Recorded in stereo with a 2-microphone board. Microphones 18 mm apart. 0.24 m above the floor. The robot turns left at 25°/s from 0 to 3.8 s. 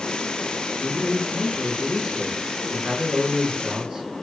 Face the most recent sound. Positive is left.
turn(degrees=-90)